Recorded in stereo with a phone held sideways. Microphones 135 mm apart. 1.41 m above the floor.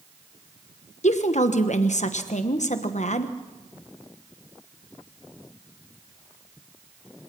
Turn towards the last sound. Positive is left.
turn(degrees=60)  # may be behind; listen again after turning